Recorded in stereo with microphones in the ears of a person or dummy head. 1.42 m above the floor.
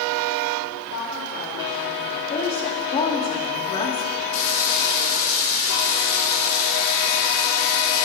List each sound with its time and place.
0.9 s a woman speaking: 85° left, 3.5 m
2.3 s a woman speaking: 30° left (ahead or behind), 2 m
4.3 s frying: 80° left, 6 m